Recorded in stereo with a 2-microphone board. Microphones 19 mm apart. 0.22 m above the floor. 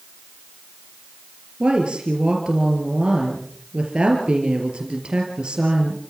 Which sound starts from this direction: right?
A woman speaking, at 1.6 s.